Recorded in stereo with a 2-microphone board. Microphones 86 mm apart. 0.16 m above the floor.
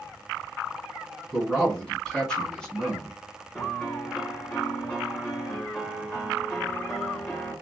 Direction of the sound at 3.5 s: 15° left (ahead or behind).